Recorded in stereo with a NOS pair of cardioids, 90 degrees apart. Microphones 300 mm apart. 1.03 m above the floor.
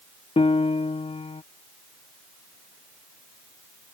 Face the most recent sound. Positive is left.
turn(degrees=20)